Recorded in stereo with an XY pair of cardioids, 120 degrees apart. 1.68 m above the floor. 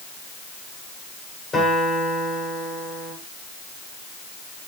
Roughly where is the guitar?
Ahead left.